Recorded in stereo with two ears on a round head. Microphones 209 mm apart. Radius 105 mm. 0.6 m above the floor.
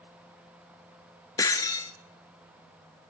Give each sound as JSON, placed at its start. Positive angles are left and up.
{"t": 1.4, "sound": "breaking glass", "side_deg": 15, "distance_m": 0.9}